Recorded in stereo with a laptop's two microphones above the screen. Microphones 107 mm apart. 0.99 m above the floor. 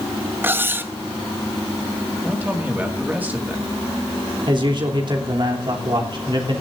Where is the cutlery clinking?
20° right (ahead or behind), 0.5 m.